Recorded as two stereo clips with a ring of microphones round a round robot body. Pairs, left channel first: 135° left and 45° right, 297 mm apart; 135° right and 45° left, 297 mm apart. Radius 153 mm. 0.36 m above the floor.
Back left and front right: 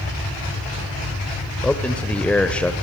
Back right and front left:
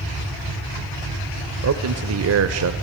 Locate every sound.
1.6 s a man speaking: 50° left, 1.1 m